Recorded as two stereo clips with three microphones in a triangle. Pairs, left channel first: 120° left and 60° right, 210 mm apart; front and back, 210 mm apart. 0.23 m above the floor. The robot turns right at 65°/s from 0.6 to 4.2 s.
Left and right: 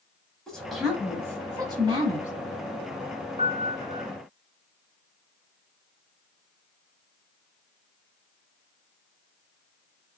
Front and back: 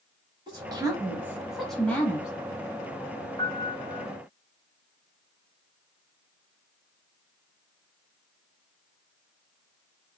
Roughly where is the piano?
Ahead right.